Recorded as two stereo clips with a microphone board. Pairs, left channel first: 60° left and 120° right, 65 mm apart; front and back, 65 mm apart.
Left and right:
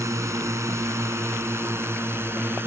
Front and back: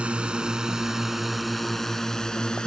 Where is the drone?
110° right; by 2.7 s 75° right.